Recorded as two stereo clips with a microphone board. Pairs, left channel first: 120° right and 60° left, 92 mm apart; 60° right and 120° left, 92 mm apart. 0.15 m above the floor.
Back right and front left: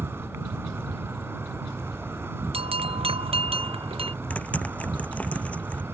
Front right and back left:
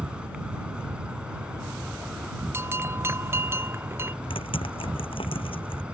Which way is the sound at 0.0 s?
55° left.